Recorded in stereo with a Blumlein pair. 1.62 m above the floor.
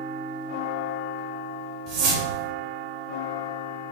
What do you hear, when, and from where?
1.9 s a whoosh: 40° right, 2.5 m